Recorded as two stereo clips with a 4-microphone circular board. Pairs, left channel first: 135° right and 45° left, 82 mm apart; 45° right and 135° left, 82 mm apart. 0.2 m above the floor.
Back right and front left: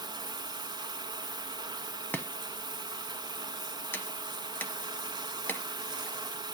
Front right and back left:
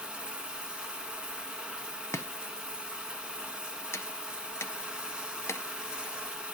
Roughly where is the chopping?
Right.